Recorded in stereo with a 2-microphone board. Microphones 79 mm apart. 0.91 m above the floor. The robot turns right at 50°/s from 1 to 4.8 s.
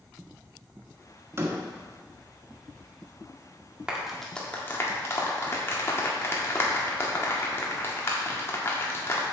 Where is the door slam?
35° right (ahead or behind), 1.4 m; by 1.6 s 20° right (ahead or behind), 1.4 m.